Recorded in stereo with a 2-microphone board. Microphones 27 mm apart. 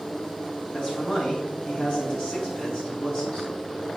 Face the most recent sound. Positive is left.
turn(degrees=45)  # may be behind; listen again after turning